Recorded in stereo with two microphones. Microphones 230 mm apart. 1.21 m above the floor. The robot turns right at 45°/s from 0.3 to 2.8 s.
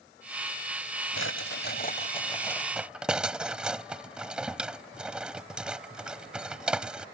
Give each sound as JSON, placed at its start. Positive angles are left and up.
{"t": 1.2, "sound": "a drawer", "side_deg": 70}